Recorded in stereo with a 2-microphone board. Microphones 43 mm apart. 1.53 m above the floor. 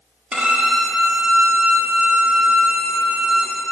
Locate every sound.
0.3 s a violin: 20° right (ahead or behind), 1.1 m